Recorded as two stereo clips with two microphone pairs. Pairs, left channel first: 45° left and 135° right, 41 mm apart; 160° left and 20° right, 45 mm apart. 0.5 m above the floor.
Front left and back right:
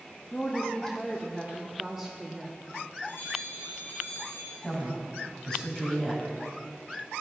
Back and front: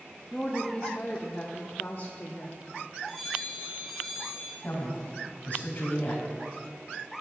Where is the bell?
75° left, 4 m.